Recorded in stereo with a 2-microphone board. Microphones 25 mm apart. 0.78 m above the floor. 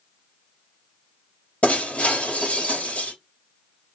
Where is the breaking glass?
75° left (ahead or behind), 4 m.